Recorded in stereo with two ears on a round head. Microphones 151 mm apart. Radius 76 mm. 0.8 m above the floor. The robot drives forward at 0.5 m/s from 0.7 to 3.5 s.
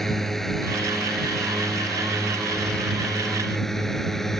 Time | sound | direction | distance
0.0 | a drone | centre (ahead or behind) | ?